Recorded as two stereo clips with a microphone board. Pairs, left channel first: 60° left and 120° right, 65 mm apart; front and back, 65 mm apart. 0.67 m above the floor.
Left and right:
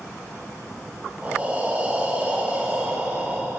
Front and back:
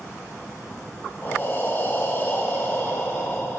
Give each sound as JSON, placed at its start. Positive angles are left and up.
{"t": 1.2, "sound": "breathing", "azimuth_deg": -55, "distance_m": 1.4}